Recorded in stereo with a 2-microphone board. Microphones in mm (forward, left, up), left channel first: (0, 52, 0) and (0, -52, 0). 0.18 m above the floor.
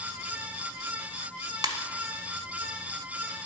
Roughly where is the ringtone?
Right.